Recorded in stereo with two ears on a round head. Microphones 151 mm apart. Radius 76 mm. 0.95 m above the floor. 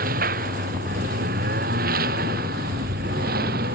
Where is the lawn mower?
55° right (ahead or behind); by 3.8 s 60° right (ahead or behind).